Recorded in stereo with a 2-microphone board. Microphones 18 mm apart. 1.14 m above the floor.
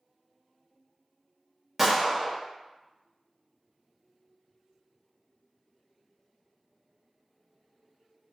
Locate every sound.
1.8 s a gunshot: 15° right (ahead or behind), 0.7 m